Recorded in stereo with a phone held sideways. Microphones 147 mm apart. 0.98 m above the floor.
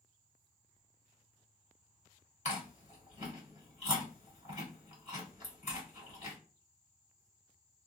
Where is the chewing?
50° left (ahead or behind), 2.5 m.